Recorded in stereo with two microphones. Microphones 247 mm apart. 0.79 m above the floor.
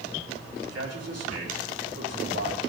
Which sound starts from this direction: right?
A man speaking, at 0.6 s.